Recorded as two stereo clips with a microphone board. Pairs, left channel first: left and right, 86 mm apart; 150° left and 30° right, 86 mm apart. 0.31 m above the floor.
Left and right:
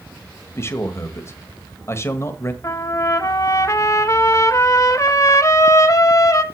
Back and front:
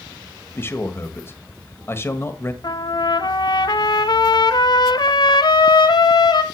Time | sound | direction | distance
0.6 | a man speaking | 115° left | 1.3 m
2.6 | a trumpet | 135° left | 0.7 m